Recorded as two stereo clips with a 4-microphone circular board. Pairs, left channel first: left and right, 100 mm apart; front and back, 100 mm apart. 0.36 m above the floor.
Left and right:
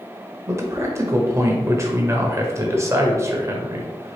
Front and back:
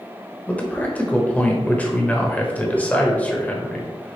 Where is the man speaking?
60° right, 1.0 m.